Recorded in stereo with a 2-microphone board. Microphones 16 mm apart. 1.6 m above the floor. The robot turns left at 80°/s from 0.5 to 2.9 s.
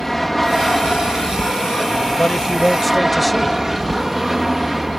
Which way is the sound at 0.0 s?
165° left.